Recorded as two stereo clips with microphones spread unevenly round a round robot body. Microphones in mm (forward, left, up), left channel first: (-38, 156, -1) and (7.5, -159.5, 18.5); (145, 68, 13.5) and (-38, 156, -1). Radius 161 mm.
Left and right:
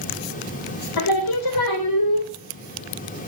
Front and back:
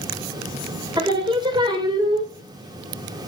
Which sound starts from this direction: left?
Singing, at 1.0 s.